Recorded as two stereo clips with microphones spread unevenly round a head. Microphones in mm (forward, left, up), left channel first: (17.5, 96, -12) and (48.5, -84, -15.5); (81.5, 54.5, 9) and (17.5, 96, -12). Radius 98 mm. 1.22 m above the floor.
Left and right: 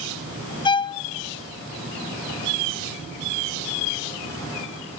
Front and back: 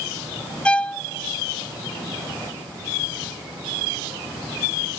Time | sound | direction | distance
0.7 | a violin | 35° left | 0.5 m